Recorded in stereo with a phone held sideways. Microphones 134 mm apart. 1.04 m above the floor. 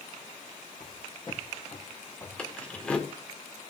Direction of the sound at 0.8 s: 35° left (ahead or behind).